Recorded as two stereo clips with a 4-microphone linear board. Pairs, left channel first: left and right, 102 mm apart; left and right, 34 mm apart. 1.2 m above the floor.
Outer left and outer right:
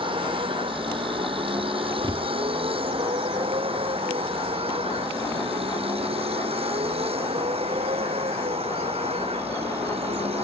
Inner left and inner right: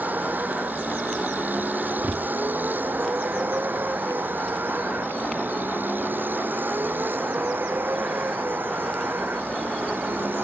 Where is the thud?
55° right (ahead or behind).